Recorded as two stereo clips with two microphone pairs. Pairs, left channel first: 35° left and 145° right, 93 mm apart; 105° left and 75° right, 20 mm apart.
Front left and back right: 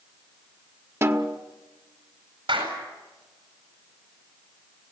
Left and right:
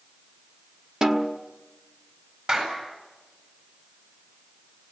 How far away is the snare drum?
About 1.4 m.